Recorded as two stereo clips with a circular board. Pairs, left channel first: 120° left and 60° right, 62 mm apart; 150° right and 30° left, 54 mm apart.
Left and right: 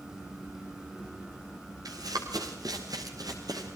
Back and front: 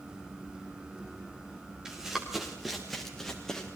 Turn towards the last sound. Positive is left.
turn(degrees=-70)